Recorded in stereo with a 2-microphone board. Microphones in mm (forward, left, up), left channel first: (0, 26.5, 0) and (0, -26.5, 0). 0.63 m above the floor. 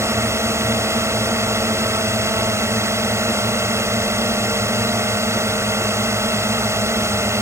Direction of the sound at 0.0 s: 60° right (ahead or behind).